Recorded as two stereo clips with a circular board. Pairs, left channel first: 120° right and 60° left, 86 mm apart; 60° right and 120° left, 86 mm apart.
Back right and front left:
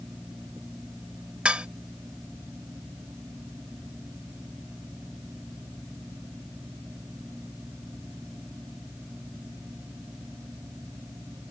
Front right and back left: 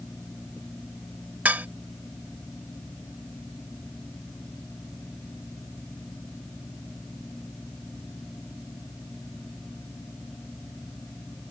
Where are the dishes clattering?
105° left.